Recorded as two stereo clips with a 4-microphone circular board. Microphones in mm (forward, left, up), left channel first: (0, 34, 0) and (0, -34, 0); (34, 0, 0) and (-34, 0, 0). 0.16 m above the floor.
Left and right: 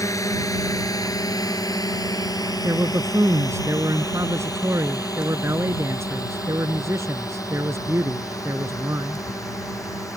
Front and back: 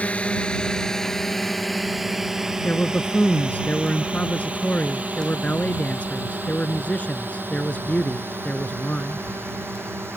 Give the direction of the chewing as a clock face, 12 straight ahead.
No chewing in this recording.